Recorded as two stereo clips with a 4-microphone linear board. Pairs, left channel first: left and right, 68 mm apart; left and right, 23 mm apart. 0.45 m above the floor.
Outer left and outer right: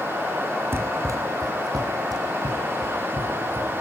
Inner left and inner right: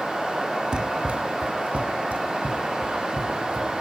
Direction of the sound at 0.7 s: 35° right (ahead or behind).